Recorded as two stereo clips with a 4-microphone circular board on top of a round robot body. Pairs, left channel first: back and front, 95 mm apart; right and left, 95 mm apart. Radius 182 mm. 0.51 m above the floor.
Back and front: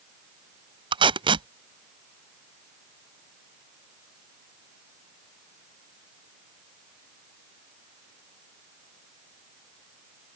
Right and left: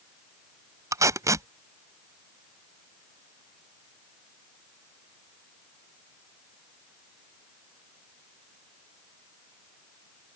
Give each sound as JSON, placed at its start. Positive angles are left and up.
{"t": 0.9, "sound": "tape being pulled", "azimuth_deg": 30}